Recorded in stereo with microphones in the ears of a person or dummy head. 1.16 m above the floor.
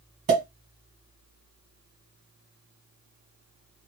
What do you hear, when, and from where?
0.3 s a pop: 35° right (ahead or behind), 1.5 m